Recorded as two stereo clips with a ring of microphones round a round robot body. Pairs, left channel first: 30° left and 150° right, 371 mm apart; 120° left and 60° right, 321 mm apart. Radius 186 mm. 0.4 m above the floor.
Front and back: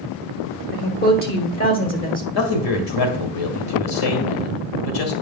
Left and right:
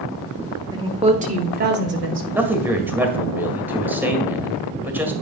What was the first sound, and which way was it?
A woman speaking, 5° left.